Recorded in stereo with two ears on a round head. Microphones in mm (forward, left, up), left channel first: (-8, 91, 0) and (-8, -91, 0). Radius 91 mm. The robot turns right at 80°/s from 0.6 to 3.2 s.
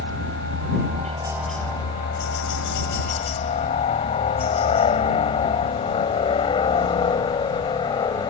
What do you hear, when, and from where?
0.0 s a helicopter: 65° right (ahead or behind); by 8.3 s 20° left (ahead or behind)